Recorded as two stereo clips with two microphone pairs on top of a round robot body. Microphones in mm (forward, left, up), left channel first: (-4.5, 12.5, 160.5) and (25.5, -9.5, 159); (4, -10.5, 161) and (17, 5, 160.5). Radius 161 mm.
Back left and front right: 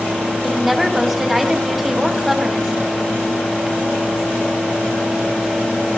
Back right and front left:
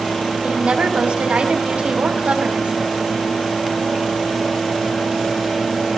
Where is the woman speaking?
40° left, 4 m.